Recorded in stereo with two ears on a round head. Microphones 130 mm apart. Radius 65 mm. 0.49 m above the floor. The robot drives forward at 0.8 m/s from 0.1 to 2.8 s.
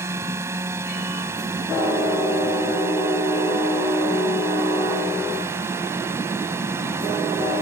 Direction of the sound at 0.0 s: 20° right (ahead or behind).